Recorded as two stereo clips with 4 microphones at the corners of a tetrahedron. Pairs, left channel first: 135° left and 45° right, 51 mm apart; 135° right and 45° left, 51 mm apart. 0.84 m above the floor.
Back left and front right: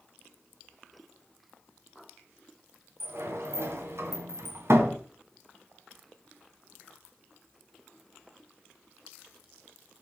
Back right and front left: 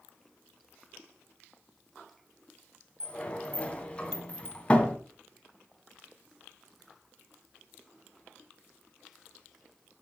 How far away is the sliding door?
About 2 m.